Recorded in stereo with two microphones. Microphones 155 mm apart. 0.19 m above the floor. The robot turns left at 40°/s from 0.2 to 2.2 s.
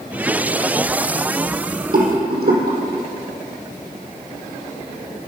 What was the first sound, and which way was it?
A rattle, 70° right (ahead or behind).